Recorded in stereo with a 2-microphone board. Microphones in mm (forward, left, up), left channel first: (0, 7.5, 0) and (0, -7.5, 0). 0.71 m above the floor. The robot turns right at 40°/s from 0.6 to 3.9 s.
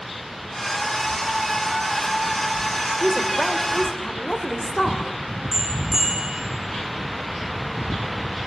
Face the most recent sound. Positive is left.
turn(degrees=-20)  # may be behind; listen again after turning